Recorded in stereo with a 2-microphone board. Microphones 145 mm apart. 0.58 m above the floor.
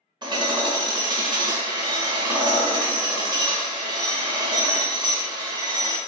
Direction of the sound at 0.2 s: 30° right (ahead or behind).